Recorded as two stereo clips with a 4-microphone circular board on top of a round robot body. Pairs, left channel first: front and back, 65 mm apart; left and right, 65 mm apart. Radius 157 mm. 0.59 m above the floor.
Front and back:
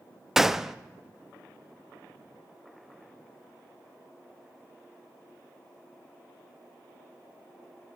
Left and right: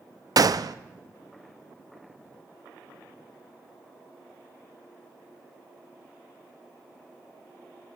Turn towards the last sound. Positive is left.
turn(degrees=-95)